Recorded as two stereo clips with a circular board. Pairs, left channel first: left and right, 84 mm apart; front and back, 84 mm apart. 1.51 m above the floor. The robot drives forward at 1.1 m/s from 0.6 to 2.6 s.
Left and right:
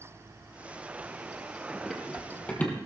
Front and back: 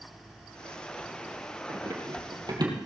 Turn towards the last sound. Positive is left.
turn(degrees=155)